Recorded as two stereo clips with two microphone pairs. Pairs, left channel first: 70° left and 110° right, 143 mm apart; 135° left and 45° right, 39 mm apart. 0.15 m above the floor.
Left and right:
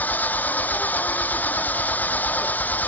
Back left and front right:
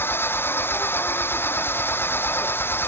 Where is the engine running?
150° left.